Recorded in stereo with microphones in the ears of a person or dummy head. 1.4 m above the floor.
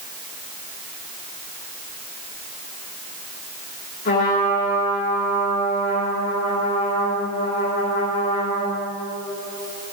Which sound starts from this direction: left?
A trumpet, at 4.0 s.